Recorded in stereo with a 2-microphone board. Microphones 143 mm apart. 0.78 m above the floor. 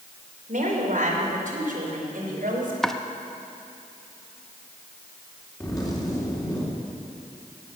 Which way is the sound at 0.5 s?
65° right (ahead or behind).